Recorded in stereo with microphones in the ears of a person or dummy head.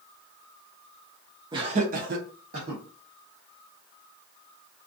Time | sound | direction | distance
1.5 | laughter | 25° right (ahead or behind) | 0.6 m